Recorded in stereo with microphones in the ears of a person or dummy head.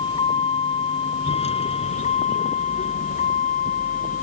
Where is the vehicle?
25° left (ahead or behind); by 4.2 s 40° left (ahead or behind).